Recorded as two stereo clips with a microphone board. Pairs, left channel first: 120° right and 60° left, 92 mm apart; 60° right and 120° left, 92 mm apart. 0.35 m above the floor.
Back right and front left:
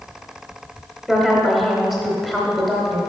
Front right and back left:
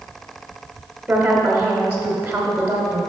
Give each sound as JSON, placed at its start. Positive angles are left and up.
{"t": 1.1, "sound": "a woman speaking", "azimuth_deg": 145, "distance_m": 1.0}